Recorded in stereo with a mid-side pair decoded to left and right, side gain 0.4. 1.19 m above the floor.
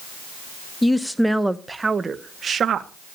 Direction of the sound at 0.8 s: 15° left.